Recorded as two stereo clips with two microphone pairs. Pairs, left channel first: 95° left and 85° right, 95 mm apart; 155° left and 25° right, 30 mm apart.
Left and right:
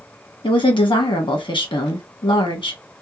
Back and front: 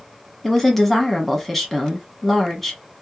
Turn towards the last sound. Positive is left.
turn(degrees=70)